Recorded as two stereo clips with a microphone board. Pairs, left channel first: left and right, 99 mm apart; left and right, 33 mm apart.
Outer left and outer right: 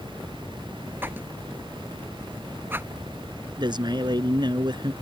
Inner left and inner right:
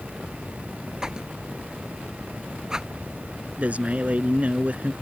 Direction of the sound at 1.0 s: 20° right (ahead or behind).